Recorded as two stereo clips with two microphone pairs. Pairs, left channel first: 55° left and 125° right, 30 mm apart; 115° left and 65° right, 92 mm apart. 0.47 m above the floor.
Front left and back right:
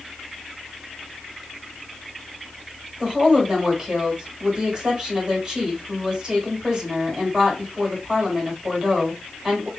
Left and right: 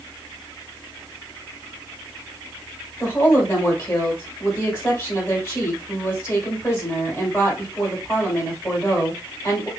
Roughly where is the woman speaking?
Behind.